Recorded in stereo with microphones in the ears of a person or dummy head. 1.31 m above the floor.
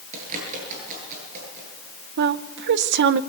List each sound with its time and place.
0.1 s a bird: 40° right (ahead or behind), 10 m
2.2 s a woman speaking: 65° right (ahead or behind), 0.7 m